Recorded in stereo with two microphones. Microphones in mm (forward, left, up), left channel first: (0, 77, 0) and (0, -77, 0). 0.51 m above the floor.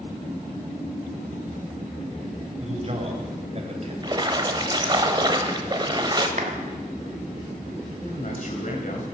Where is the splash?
30° right (ahead or behind), 1.0 m.